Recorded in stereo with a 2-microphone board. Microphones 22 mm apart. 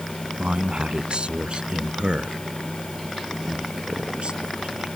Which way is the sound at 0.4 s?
55° right (ahead or behind).